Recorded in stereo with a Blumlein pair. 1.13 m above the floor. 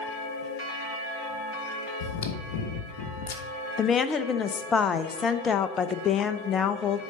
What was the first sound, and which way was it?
Chewing, 55° left.